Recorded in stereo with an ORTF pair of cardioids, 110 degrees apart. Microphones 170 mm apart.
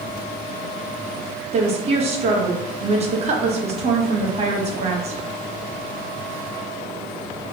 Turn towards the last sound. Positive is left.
turn(degrees=-35)